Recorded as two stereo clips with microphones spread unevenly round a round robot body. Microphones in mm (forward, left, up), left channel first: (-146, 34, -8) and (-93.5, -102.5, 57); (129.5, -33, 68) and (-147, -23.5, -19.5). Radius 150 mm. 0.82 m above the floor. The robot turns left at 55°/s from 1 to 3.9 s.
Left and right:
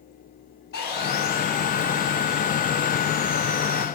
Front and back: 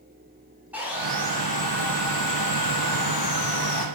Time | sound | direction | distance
0.7 | sawing | 90° left | 1.1 m